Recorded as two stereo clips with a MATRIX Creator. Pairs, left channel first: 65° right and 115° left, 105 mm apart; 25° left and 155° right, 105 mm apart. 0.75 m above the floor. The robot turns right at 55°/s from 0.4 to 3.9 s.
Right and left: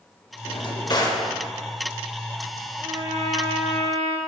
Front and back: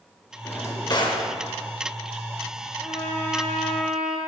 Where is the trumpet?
60° left, 1.0 m; by 4.2 s 120° left, 1.0 m.